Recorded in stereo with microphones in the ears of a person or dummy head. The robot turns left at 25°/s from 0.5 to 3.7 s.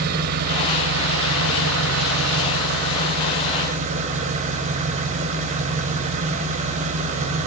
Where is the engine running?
55° right, 4 m; by 7.5 s 135° right, 4 m.